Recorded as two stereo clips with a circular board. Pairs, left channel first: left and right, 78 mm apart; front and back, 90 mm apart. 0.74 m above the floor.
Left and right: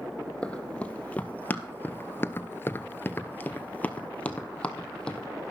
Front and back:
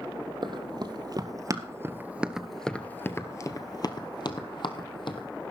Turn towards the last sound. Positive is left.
turn(degrees=10)